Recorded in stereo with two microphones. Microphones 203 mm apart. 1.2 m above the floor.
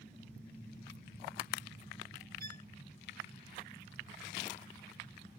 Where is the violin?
45° right (ahead or behind).